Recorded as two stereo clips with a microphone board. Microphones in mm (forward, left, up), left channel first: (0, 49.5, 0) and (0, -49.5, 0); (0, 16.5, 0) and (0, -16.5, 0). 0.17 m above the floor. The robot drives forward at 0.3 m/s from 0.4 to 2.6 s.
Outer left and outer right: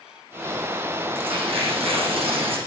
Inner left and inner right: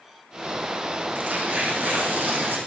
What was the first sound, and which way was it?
Tearing paper, 80° right.